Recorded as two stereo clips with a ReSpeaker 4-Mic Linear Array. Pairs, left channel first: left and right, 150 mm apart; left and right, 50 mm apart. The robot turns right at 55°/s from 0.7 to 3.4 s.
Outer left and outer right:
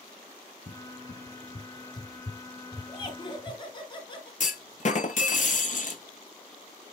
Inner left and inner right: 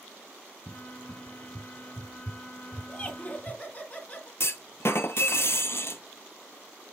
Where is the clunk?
55° left (ahead or behind), 0.7 m.